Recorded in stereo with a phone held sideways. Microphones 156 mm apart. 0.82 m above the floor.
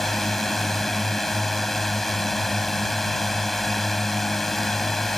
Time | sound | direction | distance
0.0 | a drone | centre (ahead or behind) | ?